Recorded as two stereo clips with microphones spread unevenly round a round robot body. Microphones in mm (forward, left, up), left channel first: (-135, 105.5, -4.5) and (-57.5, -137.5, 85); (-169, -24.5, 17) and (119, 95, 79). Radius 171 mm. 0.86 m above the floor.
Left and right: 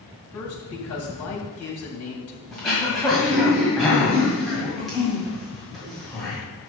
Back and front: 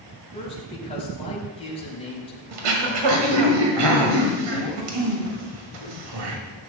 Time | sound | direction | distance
0.3 | a man speaking | 130° left | 4.5 m
2.5 | throat clearing | 15° left | 1.9 m